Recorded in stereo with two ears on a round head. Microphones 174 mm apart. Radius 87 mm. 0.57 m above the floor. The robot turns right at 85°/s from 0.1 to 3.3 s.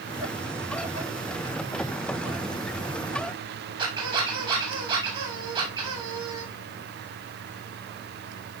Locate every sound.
3.8 s a squeak: 25° right (ahead or behind), 8 m